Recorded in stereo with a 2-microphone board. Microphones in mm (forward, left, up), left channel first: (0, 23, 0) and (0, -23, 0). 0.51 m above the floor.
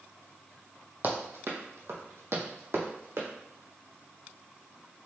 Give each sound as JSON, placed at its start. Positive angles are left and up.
{"t": 1.0, "sound": "running footsteps", "side_deg": -45, "distance_m": 1.0}